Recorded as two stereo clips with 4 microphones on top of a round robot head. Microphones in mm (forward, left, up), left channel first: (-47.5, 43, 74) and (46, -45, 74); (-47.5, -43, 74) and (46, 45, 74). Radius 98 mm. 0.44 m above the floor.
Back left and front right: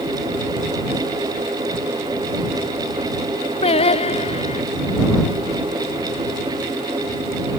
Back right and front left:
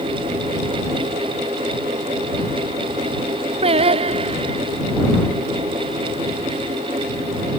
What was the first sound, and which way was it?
Singing, 90° left.